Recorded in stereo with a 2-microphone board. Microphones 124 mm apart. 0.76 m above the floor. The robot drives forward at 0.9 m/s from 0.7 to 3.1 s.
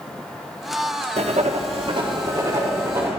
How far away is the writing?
About 0.7 m.